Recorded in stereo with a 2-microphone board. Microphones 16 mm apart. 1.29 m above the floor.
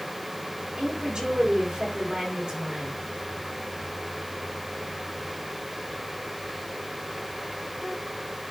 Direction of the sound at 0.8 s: 65° right (ahead or behind).